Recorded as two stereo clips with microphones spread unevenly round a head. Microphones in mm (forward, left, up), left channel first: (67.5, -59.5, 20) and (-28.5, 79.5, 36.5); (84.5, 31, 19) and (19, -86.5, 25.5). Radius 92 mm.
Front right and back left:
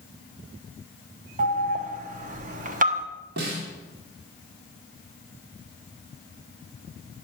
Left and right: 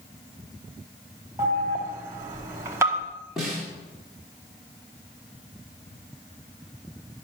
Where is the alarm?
170° left, 0.9 m.